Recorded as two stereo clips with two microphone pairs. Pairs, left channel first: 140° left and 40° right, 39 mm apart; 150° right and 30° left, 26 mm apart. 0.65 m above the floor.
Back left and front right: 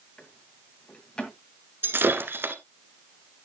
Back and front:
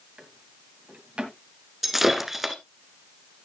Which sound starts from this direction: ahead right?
Breaking glass, at 1.8 s.